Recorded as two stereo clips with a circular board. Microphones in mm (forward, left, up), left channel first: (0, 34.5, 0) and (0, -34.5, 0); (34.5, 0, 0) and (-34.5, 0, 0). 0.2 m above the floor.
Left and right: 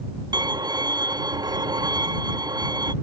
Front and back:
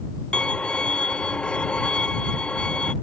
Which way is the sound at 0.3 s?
75° right.